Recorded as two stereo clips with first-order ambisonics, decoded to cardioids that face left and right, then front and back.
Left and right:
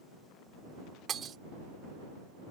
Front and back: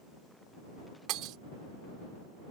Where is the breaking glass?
150° right.